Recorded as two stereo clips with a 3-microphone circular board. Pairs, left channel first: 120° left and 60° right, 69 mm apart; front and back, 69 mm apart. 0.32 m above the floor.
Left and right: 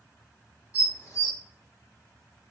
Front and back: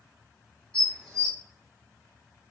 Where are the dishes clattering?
75° left, 1.6 m.